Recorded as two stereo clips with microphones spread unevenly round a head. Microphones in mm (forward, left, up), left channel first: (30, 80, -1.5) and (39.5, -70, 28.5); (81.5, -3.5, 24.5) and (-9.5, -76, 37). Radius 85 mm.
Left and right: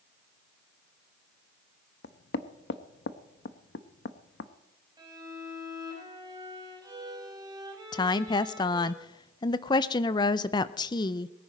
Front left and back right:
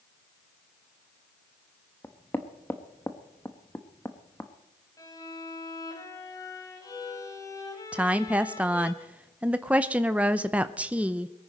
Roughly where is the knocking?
Behind left.